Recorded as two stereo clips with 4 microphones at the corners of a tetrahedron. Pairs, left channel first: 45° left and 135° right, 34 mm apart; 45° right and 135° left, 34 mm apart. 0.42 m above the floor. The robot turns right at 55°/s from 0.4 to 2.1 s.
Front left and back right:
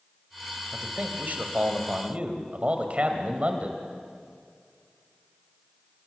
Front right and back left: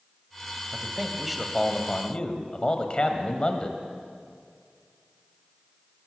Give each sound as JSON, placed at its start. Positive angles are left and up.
{"t": 0.7, "sound": "a man speaking", "azimuth_deg": -170, "distance_m": 2.5}